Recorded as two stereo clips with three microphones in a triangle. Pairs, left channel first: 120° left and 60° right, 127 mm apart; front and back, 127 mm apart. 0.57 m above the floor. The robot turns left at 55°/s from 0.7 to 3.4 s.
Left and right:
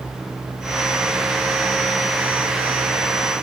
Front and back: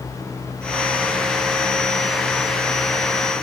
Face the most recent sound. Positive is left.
No sound to turn to.